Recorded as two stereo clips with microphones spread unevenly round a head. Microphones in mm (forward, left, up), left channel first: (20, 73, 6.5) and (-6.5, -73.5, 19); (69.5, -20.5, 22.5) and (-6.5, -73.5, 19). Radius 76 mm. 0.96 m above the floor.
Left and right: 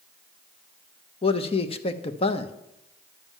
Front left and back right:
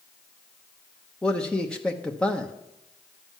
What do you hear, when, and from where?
1.2 s a man speaking: 115° left, 0.8 m